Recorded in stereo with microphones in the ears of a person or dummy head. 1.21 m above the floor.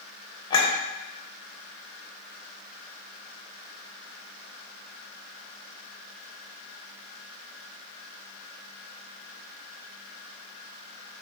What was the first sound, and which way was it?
A clink, 30° left (ahead or behind).